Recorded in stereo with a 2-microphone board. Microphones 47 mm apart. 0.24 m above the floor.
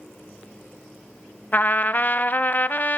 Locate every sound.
1.5 s a trumpet: 35° left (ahead or behind), 0.6 m